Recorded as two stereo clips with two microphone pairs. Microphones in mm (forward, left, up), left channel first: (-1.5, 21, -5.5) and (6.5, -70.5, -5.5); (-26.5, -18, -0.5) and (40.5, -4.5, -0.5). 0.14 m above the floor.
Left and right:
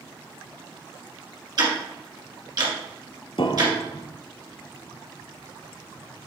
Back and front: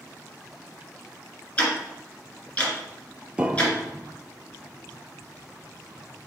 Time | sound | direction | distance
1.6 | ticking | 105° right | 2 m
3.4 | a piano | 80° left | 0.6 m